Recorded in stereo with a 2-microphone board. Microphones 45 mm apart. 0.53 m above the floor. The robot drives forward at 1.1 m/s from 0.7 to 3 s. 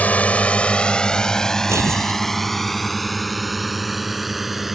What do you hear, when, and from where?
0.0 s a drone: 35° left (ahead or behind); by 4.7 s 5° right (ahead or behind)
1.7 s tearing paper: 85° right